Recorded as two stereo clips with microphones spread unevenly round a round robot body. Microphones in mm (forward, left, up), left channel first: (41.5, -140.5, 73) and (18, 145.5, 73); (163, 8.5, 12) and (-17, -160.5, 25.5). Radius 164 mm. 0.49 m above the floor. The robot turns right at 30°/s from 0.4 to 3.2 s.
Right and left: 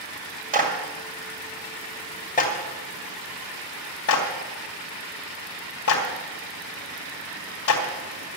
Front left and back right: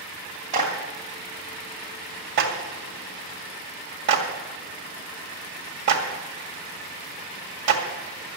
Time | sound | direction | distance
0.5 | a clap | 155° left | 2.5 m